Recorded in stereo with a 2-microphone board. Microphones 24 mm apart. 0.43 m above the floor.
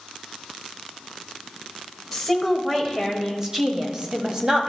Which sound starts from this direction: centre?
A woman speaking, at 2.1 s.